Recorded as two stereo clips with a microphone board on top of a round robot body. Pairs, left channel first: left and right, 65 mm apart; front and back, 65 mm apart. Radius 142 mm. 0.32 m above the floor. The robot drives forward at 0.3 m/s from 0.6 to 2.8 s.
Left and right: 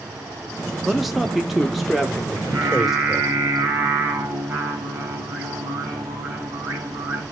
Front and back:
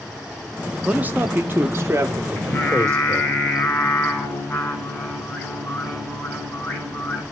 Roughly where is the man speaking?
Behind.